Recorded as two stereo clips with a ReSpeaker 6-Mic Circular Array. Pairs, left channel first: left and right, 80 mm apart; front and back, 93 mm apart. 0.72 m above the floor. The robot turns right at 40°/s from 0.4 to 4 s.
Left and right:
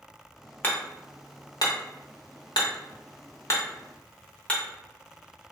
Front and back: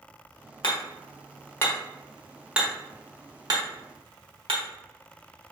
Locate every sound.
0.6 s hammering: 25° left, 0.9 m; by 4.6 s 160° left, 0.9 m